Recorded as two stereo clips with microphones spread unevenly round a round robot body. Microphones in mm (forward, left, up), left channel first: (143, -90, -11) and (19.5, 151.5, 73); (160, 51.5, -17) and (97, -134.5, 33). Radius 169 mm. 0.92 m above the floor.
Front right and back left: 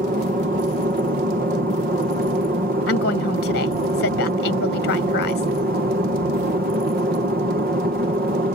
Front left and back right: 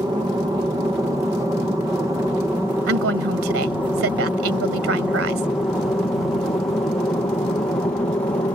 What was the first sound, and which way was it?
An aircraft, 175° left.